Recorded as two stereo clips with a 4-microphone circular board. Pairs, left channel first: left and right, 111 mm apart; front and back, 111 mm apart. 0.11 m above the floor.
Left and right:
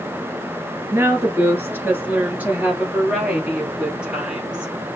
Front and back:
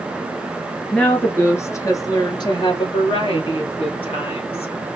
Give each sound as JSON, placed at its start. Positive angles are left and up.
{"t": 0.9, "sound": "a woman speaking", "azimuth_deg": -65, "distance_m": 1.2}